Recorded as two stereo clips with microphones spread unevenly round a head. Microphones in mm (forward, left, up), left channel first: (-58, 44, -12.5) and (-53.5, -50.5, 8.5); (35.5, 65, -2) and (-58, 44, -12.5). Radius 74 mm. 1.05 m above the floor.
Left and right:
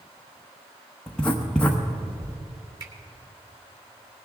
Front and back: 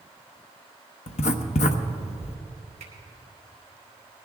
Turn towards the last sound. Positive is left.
turn(degrees=-125)